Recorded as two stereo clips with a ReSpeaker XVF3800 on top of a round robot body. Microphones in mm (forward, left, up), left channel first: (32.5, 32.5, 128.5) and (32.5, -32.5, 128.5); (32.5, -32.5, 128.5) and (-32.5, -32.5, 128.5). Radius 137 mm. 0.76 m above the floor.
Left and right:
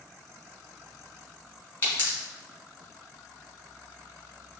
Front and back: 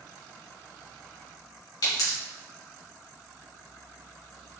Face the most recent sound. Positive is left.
turn(degrees=25)